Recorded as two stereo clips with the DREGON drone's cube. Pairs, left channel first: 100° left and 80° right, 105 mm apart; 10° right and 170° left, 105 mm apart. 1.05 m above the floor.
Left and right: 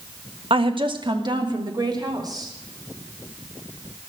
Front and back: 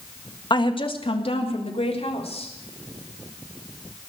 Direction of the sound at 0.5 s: 55° right.